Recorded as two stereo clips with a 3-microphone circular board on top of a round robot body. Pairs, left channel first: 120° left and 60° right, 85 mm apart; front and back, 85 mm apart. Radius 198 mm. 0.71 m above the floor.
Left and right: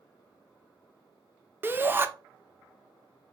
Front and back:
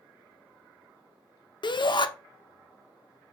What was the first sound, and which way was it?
A shout, 5° left.